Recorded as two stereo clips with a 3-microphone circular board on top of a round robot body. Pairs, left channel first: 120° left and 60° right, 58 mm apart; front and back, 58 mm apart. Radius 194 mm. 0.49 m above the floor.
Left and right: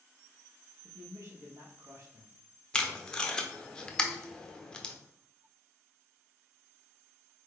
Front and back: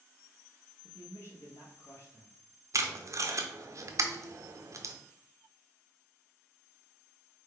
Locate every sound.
0.8 s a man speaking: 35° right, 1.2 m
2.7 s tape being pulled: 165° right, 0.8 m